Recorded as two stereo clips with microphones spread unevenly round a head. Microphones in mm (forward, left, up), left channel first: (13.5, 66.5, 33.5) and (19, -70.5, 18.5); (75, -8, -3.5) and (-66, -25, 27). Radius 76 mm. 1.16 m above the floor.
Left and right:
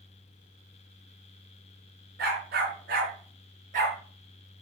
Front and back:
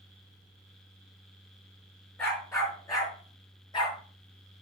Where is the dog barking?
70° right, 5 m; by 4.0 s 55° right, 5.5 m.